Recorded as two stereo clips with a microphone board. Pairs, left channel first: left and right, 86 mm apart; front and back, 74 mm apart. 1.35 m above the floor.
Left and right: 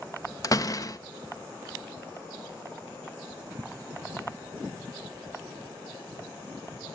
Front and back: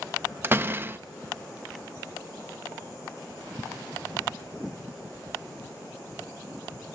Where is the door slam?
125° left, 0.5 m.